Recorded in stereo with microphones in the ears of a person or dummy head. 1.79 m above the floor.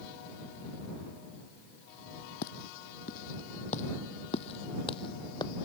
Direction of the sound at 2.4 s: 60° left (ahead or behind).